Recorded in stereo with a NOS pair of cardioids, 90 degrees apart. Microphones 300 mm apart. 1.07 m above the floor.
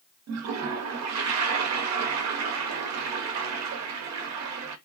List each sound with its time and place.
0.3 s a toilet flushing: 60° right, 0.7 m